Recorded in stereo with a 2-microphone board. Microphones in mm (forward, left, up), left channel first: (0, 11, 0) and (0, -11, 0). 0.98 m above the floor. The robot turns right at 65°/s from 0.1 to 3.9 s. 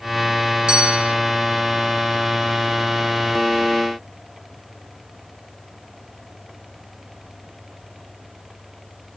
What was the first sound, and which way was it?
A bell, 130° right.